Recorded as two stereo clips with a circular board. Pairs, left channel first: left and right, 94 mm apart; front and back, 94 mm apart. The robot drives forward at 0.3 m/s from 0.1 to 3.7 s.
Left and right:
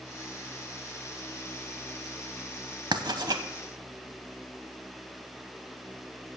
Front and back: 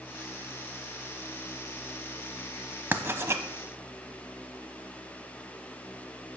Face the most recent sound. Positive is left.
turn(degrees=-130)